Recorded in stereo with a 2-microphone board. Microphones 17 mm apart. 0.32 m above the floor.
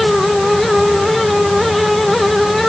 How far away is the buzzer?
No buzzer in this recording.